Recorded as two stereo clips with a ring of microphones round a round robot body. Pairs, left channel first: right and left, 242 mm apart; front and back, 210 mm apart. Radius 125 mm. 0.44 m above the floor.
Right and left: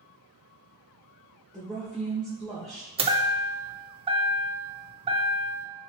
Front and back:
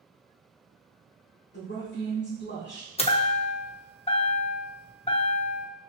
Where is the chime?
40° left, 0.6 m.